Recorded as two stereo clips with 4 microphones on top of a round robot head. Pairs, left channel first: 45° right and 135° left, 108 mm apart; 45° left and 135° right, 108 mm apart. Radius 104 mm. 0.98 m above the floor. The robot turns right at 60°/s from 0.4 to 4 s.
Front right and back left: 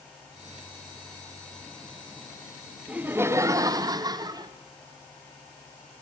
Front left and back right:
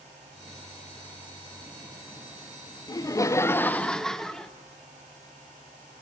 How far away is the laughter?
About 0.6 m.